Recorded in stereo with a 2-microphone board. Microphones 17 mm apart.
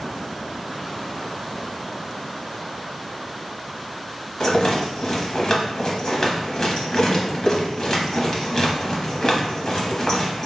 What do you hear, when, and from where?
4.4 s a rattle: 40° left (ahead or behind), 0.8 m